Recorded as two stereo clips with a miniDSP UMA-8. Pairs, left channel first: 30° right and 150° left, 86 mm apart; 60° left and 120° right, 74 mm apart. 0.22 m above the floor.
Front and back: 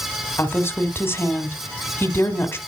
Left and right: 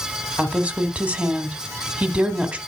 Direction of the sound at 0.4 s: 65° right.